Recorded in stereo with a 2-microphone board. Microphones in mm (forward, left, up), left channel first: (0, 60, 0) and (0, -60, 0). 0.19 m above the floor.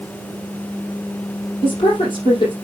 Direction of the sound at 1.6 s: 40° left (ahead or behind).